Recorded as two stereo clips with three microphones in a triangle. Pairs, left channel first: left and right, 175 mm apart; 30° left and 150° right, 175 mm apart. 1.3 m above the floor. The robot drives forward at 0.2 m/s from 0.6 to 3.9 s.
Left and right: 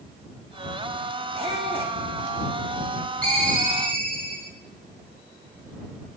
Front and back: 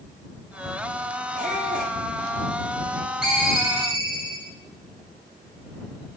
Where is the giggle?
I don't hear a giggle.